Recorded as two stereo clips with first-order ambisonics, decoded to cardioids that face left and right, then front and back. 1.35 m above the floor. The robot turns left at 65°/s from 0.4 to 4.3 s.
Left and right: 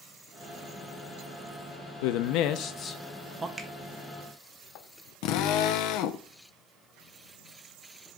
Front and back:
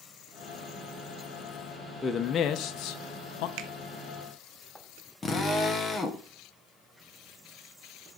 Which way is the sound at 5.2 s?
70° left.